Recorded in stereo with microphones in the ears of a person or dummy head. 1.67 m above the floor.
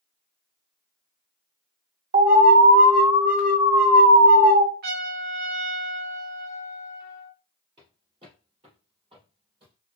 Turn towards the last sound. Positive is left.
turn(degrees=-30)  # may be behind; listen again after turning